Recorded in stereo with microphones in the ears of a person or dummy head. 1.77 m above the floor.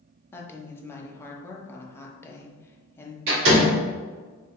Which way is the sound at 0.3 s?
15° left (ahead or behind).